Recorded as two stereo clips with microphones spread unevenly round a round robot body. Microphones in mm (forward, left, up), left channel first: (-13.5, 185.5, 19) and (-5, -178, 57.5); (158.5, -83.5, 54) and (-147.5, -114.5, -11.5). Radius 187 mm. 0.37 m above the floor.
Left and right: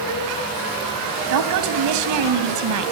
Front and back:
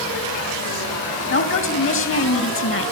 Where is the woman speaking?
45° right, 2.5 m.